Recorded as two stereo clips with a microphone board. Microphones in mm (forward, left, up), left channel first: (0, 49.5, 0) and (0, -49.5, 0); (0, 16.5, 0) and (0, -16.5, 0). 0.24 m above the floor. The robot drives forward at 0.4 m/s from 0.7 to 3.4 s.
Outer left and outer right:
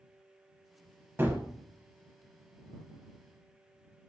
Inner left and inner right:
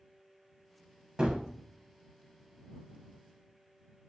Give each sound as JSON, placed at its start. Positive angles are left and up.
{"t": 1.2, "sound": "a gunshot", "side_deg": -20, "distance_m": 0.5}